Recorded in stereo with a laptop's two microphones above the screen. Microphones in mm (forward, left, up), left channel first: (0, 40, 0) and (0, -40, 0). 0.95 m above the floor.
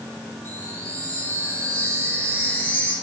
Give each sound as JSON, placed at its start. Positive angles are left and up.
{"t": 0.5, "sound": "a chime", "side_deg": 30, "distance_m": 7.0}